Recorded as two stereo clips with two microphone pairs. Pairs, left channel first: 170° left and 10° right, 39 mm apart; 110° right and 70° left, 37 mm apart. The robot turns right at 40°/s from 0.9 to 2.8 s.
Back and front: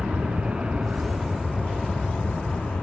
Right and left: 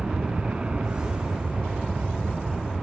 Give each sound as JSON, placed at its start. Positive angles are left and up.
{"t": 0.0, "sound": "an aircraft", "azimuth_deg": 25}